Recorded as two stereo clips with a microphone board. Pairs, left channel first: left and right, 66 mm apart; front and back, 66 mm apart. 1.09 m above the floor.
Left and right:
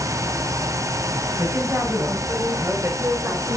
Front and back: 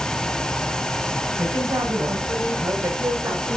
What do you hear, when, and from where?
1.4 s a woman speaking: 135° right, 7 m; by 3.6 s 130° right, 4.5 m